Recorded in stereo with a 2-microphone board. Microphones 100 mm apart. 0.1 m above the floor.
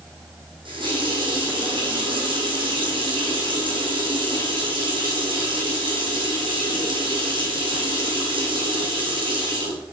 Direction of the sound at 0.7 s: 60° right (ahead or behind).